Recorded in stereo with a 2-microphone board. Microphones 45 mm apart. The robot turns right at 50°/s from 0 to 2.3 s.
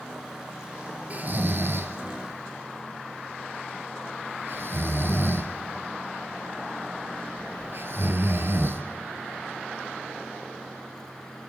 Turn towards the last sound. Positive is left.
turn(degrees=-55)  # may be behind; listen again after turning